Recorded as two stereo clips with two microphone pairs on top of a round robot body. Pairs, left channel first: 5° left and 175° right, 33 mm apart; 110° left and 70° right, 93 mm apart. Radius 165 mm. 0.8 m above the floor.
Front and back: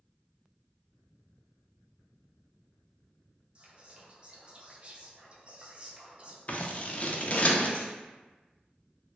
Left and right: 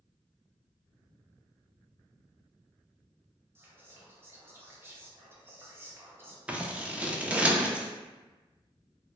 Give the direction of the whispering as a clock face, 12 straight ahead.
4 o'clock.